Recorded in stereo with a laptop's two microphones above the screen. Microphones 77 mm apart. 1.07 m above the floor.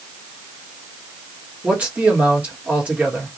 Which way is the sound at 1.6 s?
15° right (ahead or behind).